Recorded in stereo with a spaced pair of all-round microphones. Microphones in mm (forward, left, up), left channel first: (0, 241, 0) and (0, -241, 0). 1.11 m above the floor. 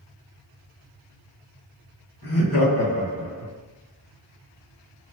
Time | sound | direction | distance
2.2 | laughter | 55° left (ahead or behind) | 1.4 m